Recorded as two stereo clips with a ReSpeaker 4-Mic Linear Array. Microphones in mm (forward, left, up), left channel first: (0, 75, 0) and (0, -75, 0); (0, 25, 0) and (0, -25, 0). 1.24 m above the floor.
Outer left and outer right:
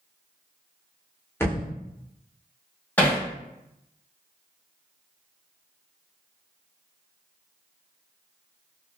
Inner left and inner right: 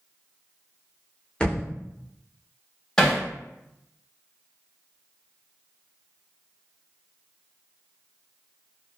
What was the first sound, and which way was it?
A thud, 15° left (ahead or behind).